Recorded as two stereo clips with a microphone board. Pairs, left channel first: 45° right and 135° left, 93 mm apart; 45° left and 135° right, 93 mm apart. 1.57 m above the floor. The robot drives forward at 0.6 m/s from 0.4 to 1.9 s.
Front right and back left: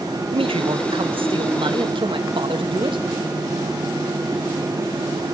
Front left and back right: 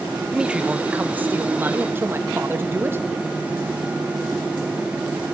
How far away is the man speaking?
About 1.2 m.